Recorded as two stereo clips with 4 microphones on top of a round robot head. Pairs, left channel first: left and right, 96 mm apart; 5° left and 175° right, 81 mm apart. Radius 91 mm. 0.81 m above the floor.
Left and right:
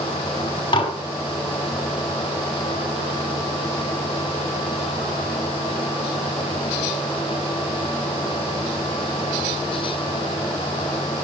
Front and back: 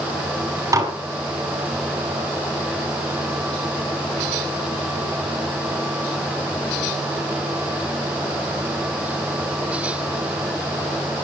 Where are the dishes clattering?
135° left, 5 m.